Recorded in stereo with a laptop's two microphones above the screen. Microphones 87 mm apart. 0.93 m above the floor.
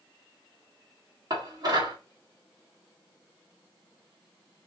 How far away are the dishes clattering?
About 1.4 m.